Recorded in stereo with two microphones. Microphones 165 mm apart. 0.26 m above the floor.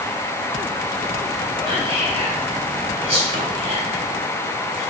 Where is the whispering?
35° right (ahead or behind), 1.1 m.